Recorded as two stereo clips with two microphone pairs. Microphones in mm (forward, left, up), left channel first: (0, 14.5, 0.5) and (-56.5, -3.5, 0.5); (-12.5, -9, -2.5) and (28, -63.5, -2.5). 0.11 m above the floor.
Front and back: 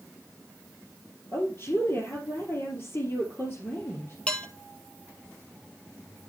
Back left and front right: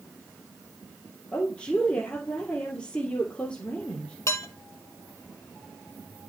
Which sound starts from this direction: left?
Dishes clattering, at 4.3 s.